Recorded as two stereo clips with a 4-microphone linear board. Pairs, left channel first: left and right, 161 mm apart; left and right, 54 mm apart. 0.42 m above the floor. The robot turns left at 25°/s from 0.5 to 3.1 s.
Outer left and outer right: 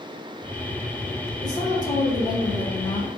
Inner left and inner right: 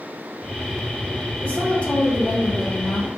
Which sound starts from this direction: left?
A woman speaking, at 1.4 s.